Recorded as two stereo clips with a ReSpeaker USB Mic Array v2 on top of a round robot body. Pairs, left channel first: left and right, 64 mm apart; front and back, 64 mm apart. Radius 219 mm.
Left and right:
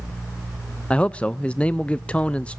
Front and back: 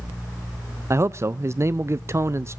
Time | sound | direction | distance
0.9 | a man speaking | 155° left | 0.7 m